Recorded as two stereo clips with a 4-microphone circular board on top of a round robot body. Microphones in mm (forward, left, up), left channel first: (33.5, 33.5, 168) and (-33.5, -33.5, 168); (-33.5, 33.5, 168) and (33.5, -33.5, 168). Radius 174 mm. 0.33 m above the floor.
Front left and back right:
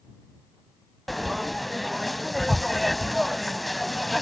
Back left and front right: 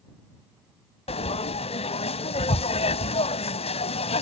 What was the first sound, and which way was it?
Frying, 135° left.